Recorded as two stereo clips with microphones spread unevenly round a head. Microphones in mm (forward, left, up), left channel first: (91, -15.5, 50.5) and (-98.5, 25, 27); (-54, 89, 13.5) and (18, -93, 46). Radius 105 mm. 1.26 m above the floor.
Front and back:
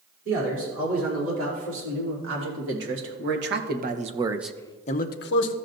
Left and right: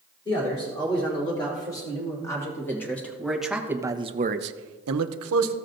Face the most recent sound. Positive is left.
turn(degrees=-40)